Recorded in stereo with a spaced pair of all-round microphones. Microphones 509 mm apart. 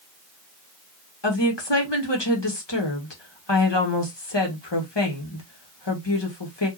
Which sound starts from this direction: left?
A woman speaking, at 1.2 s.